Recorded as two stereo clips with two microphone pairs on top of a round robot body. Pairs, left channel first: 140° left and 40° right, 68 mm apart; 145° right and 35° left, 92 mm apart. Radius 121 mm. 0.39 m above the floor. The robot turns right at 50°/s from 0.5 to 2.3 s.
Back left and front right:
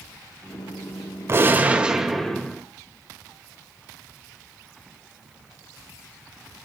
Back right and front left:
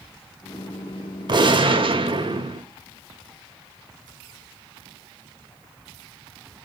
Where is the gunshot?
5° left, 2.5 m; by 2.6 s 55° left, 2.5 m.